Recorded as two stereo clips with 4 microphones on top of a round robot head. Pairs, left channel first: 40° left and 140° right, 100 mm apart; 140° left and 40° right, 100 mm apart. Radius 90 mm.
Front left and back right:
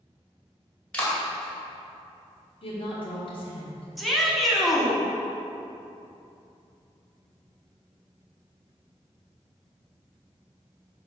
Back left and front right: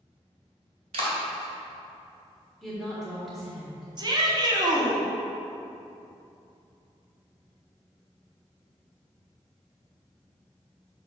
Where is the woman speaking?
50° left, 1.6 m.